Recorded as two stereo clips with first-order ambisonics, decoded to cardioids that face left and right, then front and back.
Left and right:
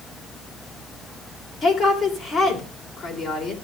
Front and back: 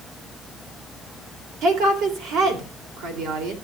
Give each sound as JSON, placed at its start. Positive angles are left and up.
{"t": 1.6, "sound": "a woman speaking", "azimuth_deg": 170, "distance_m": 2.0}